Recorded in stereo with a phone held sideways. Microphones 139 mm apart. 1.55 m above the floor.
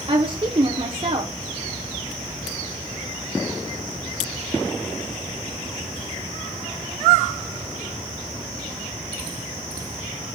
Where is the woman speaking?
40° right (ahead or behind), 0.6 m.